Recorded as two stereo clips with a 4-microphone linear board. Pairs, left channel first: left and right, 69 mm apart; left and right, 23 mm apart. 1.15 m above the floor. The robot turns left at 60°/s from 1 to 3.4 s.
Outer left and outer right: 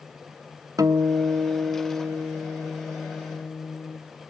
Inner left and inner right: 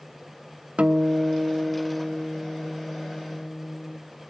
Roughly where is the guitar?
Ahead right.